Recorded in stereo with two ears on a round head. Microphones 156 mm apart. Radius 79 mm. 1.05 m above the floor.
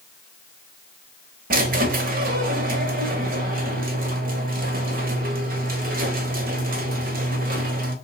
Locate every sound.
1.5 s a squeak: 50° right (ahead or behind), 1.2 m